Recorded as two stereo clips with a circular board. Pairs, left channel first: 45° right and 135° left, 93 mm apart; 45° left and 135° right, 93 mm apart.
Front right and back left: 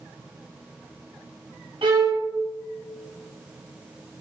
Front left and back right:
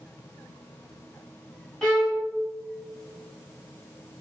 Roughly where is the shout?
No shout in this recording.